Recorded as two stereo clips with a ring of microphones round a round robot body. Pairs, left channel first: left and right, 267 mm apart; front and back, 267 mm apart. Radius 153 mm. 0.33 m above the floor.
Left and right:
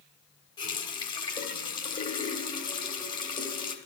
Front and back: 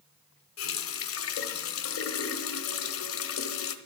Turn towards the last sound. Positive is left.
turn(degrees=20)